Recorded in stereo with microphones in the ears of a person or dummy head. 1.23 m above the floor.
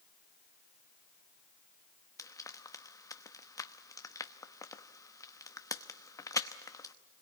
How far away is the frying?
About 0.9 m.